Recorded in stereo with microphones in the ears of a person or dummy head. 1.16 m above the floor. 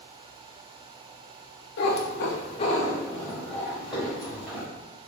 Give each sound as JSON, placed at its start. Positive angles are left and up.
{"t": 1.8, "sound": "a cat meowing", "side_deg": 60, "distance_m": 0.6}